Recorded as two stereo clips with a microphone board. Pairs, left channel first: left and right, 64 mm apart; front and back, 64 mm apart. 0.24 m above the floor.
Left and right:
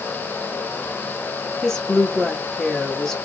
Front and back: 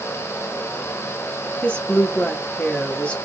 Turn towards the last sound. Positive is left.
turn(degrees=25)